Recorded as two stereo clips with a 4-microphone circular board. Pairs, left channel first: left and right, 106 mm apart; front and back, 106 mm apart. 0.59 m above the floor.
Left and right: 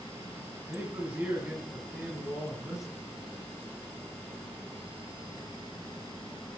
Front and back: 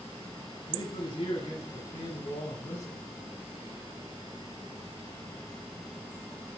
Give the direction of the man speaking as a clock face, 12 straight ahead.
1 o'clock.